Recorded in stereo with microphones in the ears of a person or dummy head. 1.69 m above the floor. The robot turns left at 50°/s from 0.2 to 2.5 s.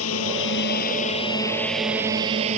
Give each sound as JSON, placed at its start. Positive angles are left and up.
{"t": 0.0, "sound": "a drone", "side_deg": 80}